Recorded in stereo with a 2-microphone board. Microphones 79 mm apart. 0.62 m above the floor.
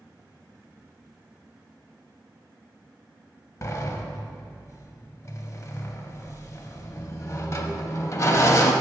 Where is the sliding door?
40° left (ahead or behind), 0.5 m.